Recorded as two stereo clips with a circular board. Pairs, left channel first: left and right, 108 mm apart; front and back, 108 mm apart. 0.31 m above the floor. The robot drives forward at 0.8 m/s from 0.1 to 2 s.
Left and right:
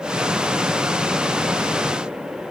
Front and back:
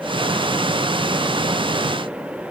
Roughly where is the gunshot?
No gunshot in this recording.